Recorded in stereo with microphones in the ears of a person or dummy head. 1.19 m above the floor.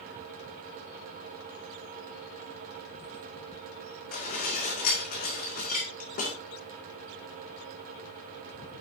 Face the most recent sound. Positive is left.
turn(degrees=50)  # may be behind; listen again after turning